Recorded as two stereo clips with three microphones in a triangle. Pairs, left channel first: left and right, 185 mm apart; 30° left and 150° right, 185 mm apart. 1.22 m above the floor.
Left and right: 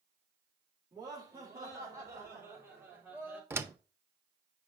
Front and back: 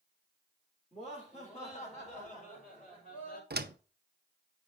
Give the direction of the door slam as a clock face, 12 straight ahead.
6 o'clock.